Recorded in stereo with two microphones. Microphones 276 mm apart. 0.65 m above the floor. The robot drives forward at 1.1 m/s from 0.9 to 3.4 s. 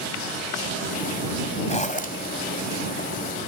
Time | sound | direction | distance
1.7 | a zipper | 25° left (ahead or behind) | 2 m